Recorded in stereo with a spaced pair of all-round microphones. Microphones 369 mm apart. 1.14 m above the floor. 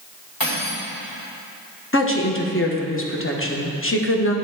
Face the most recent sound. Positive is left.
turn(degrees=35)  # may be behind; listen again after turning